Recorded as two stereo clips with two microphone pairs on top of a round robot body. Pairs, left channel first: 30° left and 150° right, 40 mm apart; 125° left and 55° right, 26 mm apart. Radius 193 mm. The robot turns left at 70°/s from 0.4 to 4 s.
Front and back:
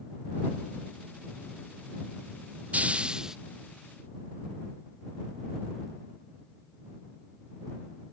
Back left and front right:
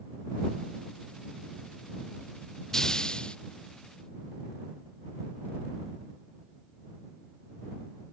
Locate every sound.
2.7 s a hiss: straight behind; by 3.4 s 135° left